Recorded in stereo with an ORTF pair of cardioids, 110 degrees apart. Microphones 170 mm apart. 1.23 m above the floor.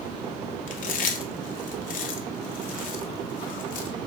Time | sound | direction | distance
0.7 | chewing | 55° left | 0.7 m